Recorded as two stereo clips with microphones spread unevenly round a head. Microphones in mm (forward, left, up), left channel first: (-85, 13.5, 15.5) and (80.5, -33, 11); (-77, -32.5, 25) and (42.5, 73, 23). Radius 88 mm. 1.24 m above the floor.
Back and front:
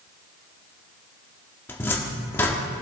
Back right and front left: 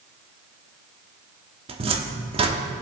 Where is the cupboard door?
90° left, 1.0 m.